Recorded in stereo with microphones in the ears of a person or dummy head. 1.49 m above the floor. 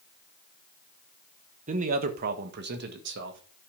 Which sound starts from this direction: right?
A man speaking, at 1.7 s.